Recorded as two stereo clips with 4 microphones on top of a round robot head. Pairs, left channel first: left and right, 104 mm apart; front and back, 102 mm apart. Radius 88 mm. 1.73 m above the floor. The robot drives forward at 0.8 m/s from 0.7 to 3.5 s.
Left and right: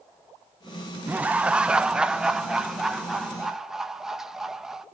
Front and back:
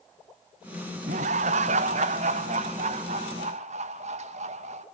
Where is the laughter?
165° right, 0.8 m; by 4.8 s 175° right, 2.5 m.